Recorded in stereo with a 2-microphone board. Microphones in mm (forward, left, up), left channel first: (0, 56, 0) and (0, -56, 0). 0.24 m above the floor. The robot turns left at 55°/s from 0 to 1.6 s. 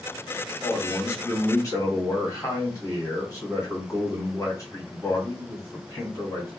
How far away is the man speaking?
About 1.8 m.